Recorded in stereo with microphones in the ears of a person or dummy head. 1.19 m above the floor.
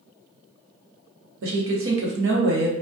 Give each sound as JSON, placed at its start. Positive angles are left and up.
{"t": 1.4, "sound": "a woman speaking", "side_deg": -75, "distance_m": 0.8}